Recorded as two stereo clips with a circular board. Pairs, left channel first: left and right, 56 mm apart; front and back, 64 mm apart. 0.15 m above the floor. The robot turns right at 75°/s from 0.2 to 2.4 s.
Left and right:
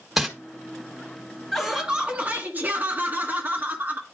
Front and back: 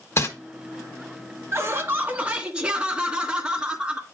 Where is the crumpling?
10° right, 1.6 m; by 0.3 s 5° right, 1.6 m.